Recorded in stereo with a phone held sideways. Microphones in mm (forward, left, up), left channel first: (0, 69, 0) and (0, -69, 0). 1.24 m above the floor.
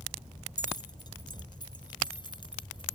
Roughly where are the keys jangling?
Left.